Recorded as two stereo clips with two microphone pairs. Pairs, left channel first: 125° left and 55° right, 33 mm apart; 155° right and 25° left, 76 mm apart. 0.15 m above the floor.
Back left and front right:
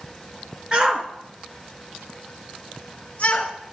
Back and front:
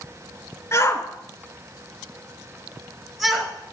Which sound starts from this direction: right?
A shout, at 0.7 s.